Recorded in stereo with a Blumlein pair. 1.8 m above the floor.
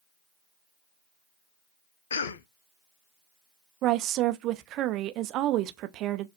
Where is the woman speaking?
35° right, 0.6 m.